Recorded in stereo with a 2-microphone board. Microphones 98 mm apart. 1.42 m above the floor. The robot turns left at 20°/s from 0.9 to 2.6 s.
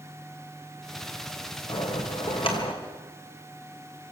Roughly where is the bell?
Left.